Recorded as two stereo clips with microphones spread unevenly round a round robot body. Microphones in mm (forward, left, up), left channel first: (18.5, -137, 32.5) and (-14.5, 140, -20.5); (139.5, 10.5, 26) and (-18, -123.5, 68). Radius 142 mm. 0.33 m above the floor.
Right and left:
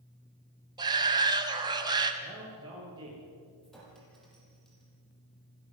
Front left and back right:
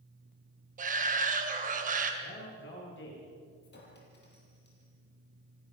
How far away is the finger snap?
No finger snap in this recording.